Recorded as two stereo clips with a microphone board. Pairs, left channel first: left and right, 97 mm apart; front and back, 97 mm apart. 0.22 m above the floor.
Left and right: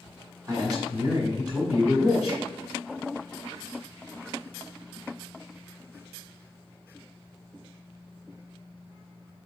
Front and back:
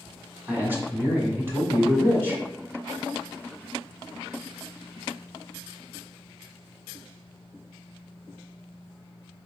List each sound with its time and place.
0.5 s a man speaking: 125° right, 1.4 m